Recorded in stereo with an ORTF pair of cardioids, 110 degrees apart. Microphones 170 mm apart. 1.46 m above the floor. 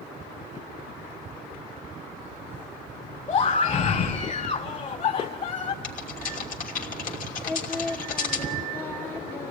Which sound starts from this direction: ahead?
Singing, at 7.5 s.